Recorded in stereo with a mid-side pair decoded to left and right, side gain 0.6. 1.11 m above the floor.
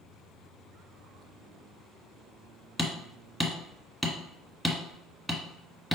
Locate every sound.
2.8 s hammering: 5° right, 1.2 m